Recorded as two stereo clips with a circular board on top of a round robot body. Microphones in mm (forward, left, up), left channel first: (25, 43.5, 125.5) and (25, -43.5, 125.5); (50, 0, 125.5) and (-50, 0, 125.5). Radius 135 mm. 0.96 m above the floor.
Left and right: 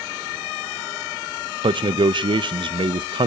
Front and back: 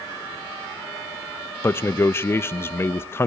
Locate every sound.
1.6 s a man speaking: 65° right, 0.6 m